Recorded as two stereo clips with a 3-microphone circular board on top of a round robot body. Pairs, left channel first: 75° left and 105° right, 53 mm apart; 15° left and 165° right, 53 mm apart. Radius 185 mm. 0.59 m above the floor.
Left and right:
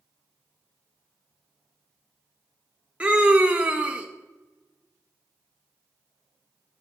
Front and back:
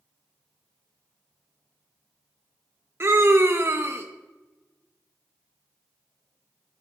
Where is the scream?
165° right, 0.9 m.